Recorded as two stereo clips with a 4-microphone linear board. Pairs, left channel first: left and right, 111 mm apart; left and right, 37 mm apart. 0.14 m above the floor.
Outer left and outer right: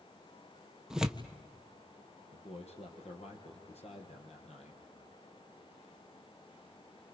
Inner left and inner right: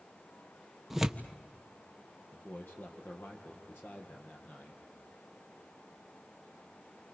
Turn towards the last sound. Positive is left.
turn(degrees=70)  # may be behind; listen again after turning